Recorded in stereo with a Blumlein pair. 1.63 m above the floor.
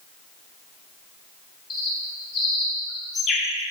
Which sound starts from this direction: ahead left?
A bird, at 1.7 s.